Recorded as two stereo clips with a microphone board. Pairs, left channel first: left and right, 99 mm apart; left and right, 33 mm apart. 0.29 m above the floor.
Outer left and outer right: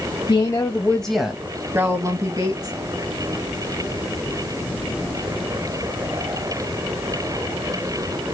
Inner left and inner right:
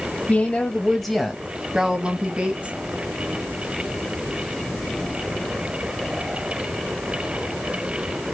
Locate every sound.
0.3 s a woman speaking: 45° left (ahead or behind), 1.5 m; by 2.8 s 45° right (ahead or behind), 3 m